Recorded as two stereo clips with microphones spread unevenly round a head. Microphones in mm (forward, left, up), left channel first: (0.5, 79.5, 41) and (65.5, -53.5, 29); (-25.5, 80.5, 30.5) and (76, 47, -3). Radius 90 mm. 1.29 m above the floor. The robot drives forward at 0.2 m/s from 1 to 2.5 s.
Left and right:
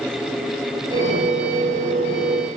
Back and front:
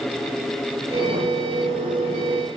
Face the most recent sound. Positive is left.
No sound to turn to.